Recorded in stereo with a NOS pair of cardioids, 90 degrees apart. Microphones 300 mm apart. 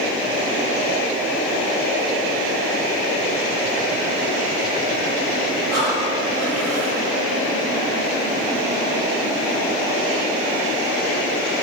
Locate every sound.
5.7 s breathing: 65° right, 3 m